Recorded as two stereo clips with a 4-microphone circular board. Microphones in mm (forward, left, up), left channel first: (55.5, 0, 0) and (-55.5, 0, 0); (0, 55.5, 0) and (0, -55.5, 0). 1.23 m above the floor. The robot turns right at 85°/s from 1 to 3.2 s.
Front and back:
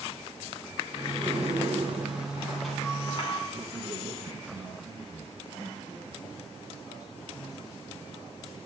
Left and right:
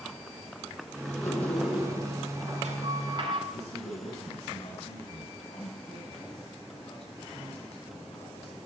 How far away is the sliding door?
About 6 m.